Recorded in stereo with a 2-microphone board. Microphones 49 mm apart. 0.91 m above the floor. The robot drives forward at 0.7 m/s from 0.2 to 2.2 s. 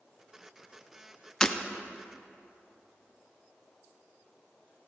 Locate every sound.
1.4 s breaking glass: 15° left (ahead or behind), 0.5 m